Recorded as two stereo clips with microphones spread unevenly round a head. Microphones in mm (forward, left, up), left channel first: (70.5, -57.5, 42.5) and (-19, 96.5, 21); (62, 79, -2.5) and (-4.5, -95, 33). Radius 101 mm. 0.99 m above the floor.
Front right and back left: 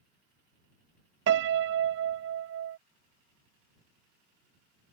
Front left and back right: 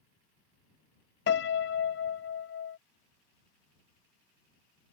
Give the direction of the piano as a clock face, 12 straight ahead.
8 o'clock.